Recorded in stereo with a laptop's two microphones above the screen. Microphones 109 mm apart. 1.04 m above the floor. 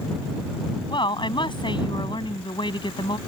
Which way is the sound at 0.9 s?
45° left (ahead or behind).